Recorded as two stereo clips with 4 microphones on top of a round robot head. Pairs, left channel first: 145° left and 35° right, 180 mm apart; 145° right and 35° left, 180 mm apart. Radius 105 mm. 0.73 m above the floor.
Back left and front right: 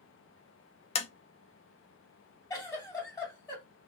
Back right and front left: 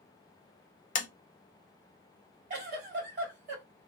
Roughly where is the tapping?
Behind.